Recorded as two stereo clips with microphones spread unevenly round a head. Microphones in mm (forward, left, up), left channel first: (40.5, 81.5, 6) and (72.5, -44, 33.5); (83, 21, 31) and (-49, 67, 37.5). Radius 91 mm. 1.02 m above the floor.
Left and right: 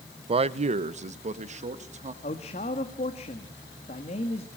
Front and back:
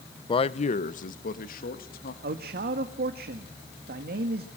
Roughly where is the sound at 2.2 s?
Behind left.